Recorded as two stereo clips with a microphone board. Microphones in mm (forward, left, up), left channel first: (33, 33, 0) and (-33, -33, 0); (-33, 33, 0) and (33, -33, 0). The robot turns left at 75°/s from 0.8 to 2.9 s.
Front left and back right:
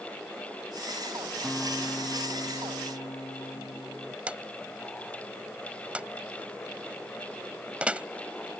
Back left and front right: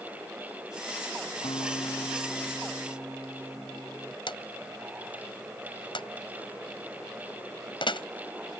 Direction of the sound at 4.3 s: 150° left.